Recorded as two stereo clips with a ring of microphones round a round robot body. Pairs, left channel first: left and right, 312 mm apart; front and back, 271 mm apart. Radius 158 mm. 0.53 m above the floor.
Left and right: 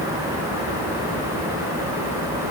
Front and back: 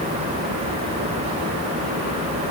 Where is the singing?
I don't hear singing.